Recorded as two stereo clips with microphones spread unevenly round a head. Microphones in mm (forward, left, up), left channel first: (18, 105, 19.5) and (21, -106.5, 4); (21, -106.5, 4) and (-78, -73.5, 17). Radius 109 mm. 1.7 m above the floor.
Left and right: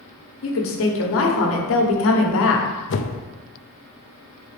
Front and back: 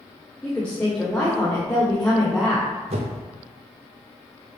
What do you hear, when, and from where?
0.4 s a woman speaking: 70° left, 1.2 m
2.9 s a whoosh: 125° left, 0.6 m